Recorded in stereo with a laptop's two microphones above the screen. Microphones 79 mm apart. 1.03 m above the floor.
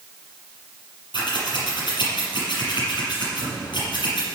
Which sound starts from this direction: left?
Scissors, at 1.1 s.